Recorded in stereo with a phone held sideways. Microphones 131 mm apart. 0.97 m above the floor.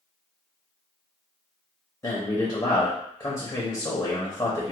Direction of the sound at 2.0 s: 30° left (ahead or behind).